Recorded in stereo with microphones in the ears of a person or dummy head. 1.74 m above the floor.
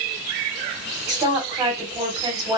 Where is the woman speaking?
20° right (ahead or behind), 1.4 m.